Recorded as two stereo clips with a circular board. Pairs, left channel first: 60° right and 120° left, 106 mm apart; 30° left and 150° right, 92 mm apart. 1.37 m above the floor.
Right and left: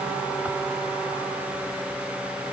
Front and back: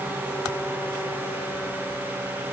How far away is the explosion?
I don't hear an explosion.